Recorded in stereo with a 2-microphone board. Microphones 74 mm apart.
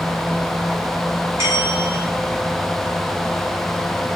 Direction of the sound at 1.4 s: 40° right (ahead or behind).